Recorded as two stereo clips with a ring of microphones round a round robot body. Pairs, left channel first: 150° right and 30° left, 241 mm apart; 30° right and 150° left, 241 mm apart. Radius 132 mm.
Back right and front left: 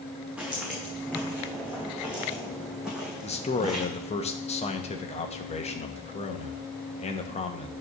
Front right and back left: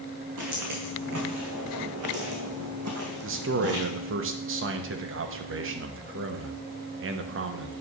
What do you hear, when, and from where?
0.4 s footsteps: 115° left, 3.5 m; by 3.9 s 120° left, 1.6 m
3.2 s a man speaking: 150° left, 1.0 m